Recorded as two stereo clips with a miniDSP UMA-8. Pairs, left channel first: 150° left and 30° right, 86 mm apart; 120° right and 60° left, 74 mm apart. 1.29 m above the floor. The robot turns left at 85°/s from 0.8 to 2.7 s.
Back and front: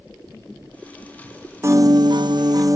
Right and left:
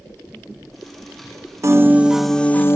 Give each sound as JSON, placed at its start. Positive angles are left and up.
{"t": 1.6, "sound": "a piano", "azimuth_deg": 25, "distance_m": 0.8}